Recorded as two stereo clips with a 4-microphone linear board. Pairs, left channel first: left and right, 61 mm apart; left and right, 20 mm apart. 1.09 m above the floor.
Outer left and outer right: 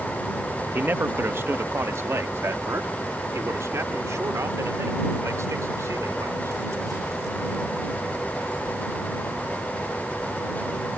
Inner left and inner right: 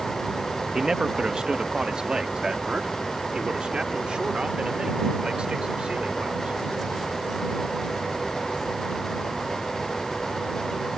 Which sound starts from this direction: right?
A man speaking, at 0.7 s.